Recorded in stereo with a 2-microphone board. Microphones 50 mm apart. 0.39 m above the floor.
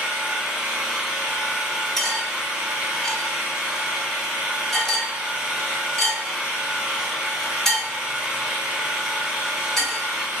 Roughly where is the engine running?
Centre.